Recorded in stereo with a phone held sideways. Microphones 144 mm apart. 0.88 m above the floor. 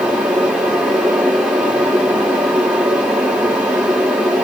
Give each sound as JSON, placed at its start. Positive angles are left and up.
{"t": 0.0, "sound": "a fan", "side_deg": -5, "distance_m": 3.0}